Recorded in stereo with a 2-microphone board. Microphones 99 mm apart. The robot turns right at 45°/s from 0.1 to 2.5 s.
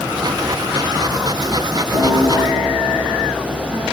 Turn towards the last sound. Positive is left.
turn(degrees=45)  # may be behind; listen again after turning